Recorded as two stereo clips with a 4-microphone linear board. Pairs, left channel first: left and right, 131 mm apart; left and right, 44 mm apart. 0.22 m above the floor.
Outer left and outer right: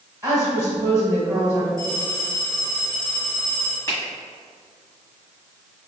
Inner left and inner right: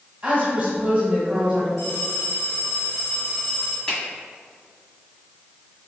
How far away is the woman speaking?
About 1.3 m.